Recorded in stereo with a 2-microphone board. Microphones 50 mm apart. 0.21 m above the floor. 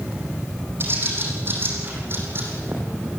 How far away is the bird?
About 6 m.